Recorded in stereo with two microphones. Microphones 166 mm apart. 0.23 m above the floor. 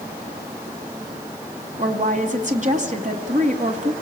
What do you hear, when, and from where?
1.8 s a woman speaking: 50° right (ahead or behind), 2 m